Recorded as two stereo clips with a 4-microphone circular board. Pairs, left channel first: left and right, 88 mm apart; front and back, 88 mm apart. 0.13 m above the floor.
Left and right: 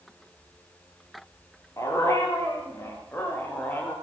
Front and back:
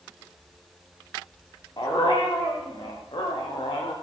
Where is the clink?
No clink in this recording.